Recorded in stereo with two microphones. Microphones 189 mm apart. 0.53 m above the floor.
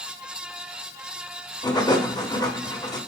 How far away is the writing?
About 1.3 m.